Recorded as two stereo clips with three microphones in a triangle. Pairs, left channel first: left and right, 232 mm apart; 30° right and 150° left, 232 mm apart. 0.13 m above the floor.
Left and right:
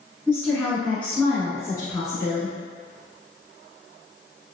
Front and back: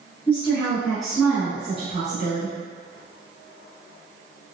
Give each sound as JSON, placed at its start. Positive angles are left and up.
{"t": 0.3, "sound": "a woman speaking", "azimuth_deg": -5, "distance_m": 1.3}